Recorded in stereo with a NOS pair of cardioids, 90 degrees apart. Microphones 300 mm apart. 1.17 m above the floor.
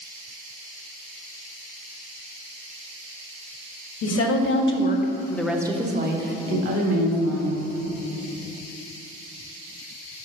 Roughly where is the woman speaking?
Ahead left.